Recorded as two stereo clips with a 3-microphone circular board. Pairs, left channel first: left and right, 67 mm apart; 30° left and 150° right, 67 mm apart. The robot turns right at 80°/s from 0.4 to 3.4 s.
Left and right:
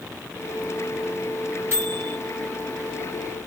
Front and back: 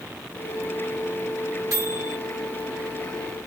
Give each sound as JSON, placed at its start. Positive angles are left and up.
{"t": 1.7, "sound": "a microwave", "azimuth_deg": -140, "distance_m": 3.0}